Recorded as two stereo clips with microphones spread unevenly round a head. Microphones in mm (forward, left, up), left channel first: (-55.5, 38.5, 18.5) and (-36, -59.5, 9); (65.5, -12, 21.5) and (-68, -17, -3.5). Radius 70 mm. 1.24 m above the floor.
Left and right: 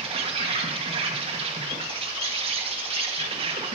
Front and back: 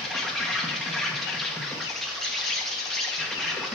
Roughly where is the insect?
Right.